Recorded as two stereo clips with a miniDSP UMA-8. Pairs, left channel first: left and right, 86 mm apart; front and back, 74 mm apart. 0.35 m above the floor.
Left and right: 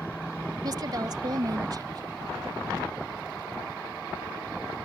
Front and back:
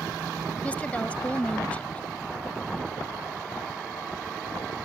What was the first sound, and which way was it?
A woman speaking, 65° right.